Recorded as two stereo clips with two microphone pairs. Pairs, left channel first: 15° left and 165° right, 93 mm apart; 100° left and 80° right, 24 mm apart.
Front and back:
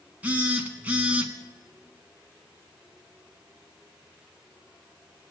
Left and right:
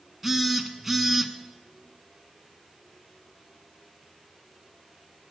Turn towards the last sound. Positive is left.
turn(degrees=-135)